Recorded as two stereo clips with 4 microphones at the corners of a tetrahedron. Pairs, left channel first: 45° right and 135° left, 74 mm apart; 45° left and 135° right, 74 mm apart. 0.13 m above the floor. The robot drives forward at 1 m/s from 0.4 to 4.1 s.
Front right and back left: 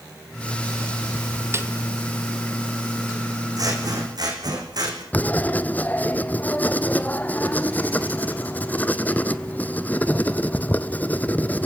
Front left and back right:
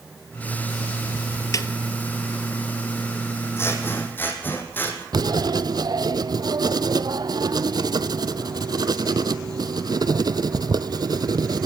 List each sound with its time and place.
1.5 s a snare drum: 80° left, 1.3 m; by 1.7 s 90° left, 1.3 m
3.6 s scissors: 100° left, 4 m; by 5.0 s 110° left, 4 m
5.1 s writing: 110° right, 0.8 m